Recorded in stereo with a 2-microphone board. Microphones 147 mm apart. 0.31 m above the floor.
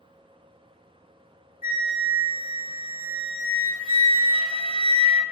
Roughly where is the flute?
Left.